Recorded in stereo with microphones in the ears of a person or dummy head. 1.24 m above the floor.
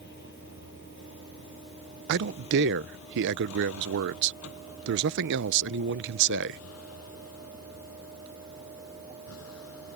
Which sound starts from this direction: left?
A vehicle, at 0.0 s.